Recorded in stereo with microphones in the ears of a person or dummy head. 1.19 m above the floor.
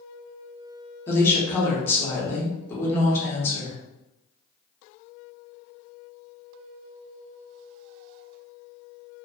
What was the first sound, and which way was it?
A woman speaking, 15° left (ahead or behind).